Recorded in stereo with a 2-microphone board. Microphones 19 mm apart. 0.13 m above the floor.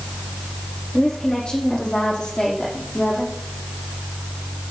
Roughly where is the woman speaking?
Left.